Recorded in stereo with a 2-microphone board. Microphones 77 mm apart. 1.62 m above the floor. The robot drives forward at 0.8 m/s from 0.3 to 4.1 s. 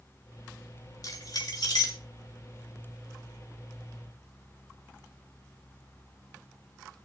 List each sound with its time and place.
1.0 s keys jangling: 55° left (ahead or behind), 2.5 m; by 2.0 s 70° left (ahead or behind), 2.5 m